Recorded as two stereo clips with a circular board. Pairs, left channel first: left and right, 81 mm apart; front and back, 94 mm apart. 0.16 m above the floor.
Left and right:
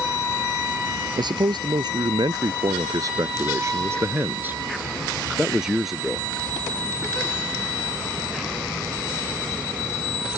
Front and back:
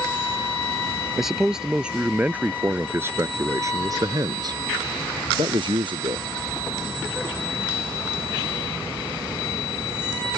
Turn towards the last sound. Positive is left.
turn(degrees=180)